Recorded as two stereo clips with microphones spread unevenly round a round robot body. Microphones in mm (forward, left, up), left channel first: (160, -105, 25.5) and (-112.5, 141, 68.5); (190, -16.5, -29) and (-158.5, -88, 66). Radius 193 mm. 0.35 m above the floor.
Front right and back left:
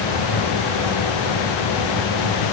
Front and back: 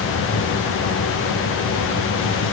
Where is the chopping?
I don't hear chopping.